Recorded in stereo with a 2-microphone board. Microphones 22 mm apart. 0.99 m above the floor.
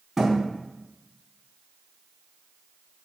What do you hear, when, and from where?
0.2 s a thud: 20° right (ahead or behind), 4 m